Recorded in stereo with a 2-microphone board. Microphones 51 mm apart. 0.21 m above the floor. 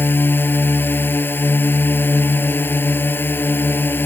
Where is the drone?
45° left (ahead or behind).